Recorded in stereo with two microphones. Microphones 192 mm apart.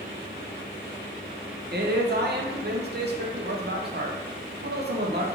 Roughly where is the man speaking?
Right.